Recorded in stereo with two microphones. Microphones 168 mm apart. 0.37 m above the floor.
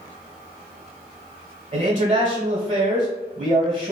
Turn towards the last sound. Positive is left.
turn(degrees=-50)  # may be behind; listen again after turning